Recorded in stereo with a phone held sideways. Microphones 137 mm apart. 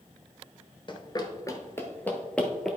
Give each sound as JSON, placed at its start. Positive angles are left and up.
{"t": 0.9, "sound": "running footsteps", "side_deg": 35, "distance_m": 1.1}